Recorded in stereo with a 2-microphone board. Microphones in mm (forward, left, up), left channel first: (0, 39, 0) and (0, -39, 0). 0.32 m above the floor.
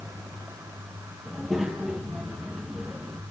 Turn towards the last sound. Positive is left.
turn(degrees=0)  # may be behind; listen again after turning